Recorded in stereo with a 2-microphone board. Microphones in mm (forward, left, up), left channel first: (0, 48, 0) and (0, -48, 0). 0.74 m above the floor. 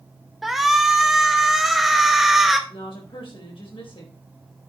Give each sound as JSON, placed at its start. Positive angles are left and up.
{"t": 0.4, "sound": "a shout", "side_deg": -5, "distance_m": 0.8}
{"t": 2.7, "sound": "a woman speaking", "side_deg": 65, "distance_m": 4.0}